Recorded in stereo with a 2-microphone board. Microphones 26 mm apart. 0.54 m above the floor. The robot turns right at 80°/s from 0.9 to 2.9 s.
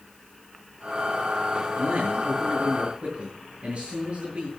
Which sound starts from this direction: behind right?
A man speaking, at 1.8 s.